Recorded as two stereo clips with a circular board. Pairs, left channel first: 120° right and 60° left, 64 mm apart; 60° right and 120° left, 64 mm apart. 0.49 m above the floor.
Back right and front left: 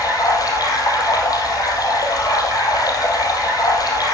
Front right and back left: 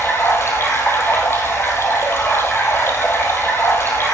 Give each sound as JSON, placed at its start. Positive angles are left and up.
{"t": 0.0, "sound": "running water", "azimuth_deg": -110, "distance_m": 2.5}